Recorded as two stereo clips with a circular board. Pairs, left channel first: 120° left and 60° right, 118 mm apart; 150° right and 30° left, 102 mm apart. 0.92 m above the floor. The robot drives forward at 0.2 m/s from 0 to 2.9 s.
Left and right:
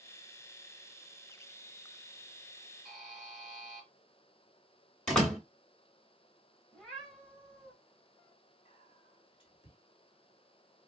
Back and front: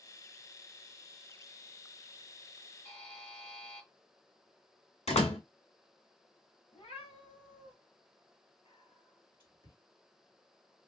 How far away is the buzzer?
About 2.5 m.